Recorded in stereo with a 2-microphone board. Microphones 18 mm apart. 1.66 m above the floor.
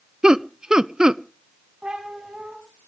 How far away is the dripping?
No dripping in this recording.